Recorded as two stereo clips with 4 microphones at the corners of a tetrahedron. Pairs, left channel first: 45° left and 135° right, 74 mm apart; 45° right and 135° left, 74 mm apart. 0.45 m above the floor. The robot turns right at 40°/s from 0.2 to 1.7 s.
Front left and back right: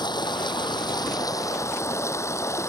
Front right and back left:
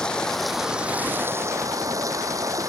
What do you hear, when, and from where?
0.0 s running water: 35° left; by 2.7 s 95° left